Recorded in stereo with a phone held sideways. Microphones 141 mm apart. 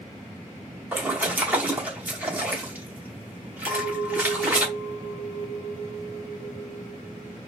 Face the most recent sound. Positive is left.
turn(degrees=10)  # may be behind; listen again after turning